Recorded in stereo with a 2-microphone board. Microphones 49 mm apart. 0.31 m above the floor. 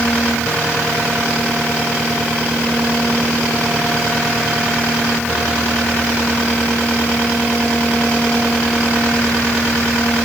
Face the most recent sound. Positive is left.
No sound to turn to.